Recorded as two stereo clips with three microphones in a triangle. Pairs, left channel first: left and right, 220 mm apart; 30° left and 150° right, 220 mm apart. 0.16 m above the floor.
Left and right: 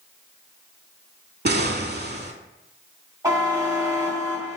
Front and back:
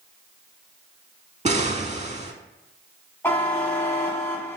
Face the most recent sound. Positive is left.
turn(degrees=-35)